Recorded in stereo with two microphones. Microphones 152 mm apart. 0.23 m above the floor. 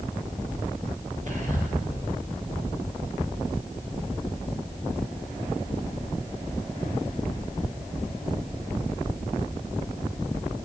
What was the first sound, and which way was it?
Whispering, 55° right (ahead or behind).